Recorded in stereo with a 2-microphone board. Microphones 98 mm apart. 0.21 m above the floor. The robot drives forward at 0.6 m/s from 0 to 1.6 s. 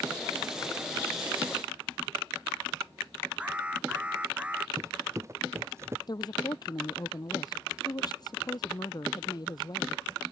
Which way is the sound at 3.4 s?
10° right (ahead or behind).